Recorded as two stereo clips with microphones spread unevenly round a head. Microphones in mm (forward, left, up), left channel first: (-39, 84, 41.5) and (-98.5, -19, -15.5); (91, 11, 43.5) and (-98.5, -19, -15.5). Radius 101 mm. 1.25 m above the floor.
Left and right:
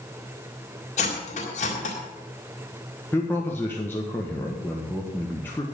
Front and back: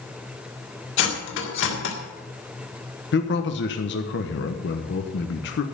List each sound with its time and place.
1.0 s cutlery clinking: 30° left, 2.0 m
3.1 s a man speaking: 30° right, 1.2 m